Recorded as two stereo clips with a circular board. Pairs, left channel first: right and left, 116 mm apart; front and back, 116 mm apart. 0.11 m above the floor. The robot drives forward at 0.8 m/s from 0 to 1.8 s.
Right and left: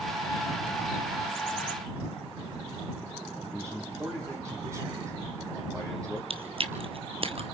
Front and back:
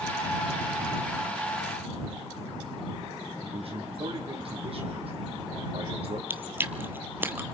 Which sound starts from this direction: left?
Chewing, at 6.3 s.